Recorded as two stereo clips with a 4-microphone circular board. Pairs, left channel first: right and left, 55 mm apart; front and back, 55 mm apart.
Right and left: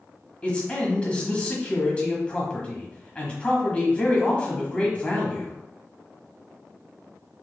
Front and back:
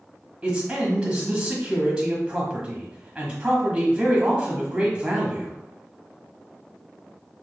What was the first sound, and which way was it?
A man speaking, 130° right.